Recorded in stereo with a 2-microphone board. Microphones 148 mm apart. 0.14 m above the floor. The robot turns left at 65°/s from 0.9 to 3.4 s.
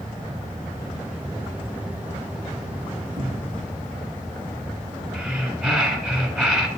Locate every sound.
3.2 s a cupboard door: 35° right (ahead or behind), 2 m; by 3.6 s 20° right (ahead or behind), 2 m
5.1 s breathing: centre (ahead or behind), 1.2 m